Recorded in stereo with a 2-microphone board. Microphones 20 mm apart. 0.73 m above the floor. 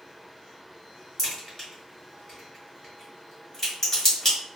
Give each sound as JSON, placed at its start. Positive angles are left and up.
{"t": 1.2, "sound": "a crack", "side_deg": 15, "distance_m": 2.0}